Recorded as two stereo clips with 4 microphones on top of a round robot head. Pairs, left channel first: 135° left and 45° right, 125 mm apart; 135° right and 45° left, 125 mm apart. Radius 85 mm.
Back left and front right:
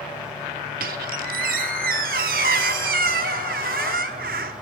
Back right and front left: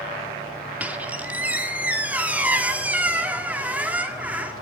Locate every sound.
0.8 s a squeak: 35° right, 1.2 m